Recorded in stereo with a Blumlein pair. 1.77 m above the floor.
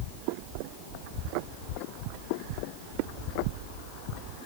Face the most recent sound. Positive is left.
No sound to turn to.